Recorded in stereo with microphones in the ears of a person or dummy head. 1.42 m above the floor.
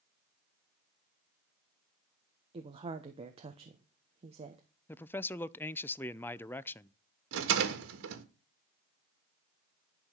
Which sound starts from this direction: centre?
A man speaking, at 4.9 s.